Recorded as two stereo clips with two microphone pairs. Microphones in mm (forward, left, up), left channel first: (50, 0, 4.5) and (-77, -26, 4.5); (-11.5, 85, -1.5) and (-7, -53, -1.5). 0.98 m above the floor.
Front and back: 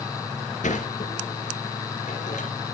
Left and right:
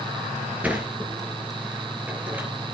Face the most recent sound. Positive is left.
turn(degrees=-10)